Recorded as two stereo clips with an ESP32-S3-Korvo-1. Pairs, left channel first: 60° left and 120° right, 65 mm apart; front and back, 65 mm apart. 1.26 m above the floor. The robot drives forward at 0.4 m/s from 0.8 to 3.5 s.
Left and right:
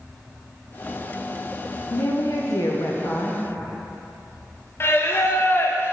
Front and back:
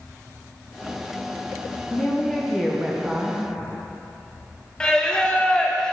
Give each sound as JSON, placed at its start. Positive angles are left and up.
{"t": 1.9, "sound": "a woman speaking", "azimuth_deg": 65, "distance_m": 0.9}
{"t": 4.8, "sound": "singing", "azimuth_deg": 70, "distance_m": 0.5}